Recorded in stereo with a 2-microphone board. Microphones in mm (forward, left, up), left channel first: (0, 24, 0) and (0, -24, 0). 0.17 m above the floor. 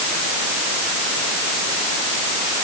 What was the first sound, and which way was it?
Only background noise.